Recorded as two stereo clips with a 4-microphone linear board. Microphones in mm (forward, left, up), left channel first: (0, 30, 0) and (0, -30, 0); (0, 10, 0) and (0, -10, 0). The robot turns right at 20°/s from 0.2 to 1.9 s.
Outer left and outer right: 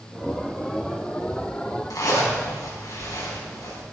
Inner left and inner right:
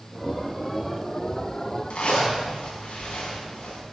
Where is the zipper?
80° left, 5 m.